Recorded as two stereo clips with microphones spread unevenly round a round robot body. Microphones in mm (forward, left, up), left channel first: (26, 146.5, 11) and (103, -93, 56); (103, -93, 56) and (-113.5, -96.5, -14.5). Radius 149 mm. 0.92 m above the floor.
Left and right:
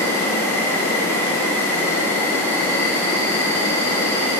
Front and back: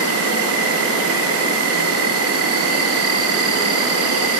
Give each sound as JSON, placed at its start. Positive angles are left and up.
{"t": 0.0, "sound": "an insect", "azimuth_deg": -170, "distance_m": 0.7}